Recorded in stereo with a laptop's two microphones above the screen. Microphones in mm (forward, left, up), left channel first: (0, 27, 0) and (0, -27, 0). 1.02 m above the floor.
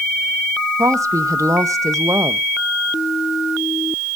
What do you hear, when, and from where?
0.8 s a woman speaking: 75° right (ahead or behind), 0.7 m